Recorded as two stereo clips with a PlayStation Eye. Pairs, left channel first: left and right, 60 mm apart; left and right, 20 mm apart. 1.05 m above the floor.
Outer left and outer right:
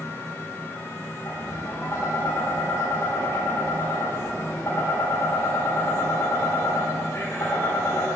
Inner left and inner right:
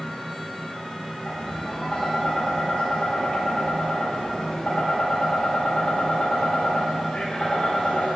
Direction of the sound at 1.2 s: 50° left (ahead or behind).